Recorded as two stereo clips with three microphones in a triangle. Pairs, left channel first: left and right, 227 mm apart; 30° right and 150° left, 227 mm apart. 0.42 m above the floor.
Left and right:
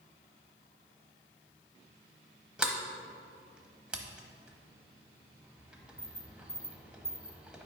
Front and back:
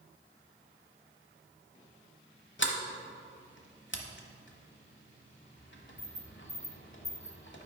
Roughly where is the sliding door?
Ahead.